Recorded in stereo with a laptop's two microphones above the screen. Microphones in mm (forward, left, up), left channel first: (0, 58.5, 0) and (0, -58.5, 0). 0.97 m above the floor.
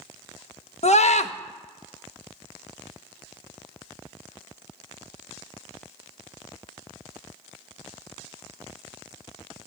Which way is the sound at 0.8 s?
70° left (ahead or behind).